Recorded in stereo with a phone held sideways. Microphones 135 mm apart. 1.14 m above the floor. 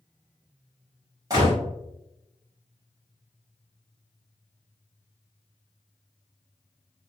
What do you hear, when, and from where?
1.3 s a gunshot: 25° right (ahead or behind), 1.4 m